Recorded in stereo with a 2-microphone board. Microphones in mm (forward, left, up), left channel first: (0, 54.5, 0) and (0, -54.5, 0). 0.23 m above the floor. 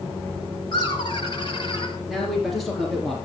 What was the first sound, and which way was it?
Laughter, 45° left (ahead or behind).